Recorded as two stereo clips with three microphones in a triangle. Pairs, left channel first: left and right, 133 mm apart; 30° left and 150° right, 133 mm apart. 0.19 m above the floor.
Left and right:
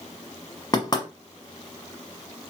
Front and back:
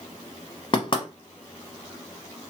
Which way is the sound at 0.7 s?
55° left.